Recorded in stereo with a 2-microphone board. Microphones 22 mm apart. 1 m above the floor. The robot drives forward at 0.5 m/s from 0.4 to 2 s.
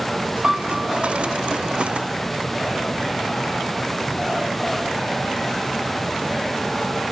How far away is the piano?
About 3.5 m.